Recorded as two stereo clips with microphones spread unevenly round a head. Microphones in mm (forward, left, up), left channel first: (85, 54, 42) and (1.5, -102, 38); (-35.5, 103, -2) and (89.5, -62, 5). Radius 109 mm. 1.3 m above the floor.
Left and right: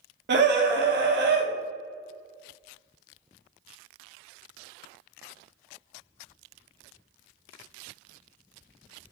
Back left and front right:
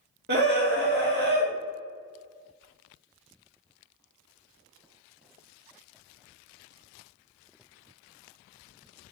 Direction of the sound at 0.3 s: 100° right.